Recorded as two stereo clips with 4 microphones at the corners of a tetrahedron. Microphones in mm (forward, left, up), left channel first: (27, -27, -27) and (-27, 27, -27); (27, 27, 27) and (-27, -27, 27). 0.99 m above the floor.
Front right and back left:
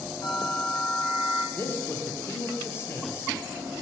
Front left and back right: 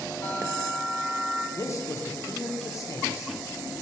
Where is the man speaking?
5° left, 0.6 m.